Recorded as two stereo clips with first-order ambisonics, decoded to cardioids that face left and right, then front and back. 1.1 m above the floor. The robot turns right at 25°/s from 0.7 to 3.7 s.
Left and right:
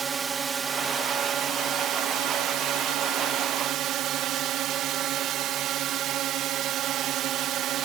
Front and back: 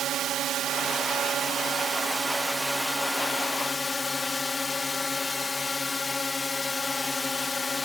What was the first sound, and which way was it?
A drone, 145° right.